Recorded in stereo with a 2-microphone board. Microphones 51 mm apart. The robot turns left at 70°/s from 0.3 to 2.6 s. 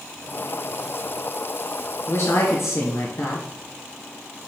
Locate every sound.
2.1 s a woman speaking: 120° left, 2.5 m; by 3.5 s 80° left, 2.5 m